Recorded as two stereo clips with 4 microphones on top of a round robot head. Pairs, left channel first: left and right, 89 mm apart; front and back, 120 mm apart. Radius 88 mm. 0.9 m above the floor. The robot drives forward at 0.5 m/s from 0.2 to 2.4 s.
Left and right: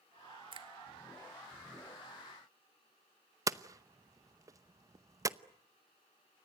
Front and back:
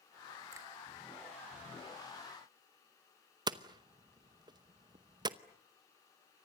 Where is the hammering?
135° right, 0.9 m.